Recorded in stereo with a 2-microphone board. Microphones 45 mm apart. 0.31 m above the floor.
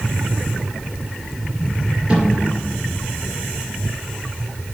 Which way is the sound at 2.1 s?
25° right (ahead or behind).